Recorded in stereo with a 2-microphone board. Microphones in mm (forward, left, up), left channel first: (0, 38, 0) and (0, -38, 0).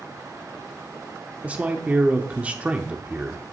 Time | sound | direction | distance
1.4 | a man speaking | 20° right (ahead or behind) | 0.7 m